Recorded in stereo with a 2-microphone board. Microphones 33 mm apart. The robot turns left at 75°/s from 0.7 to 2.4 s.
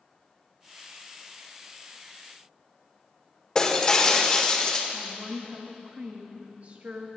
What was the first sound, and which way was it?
Breaking glass, 20° left (ahead or behind).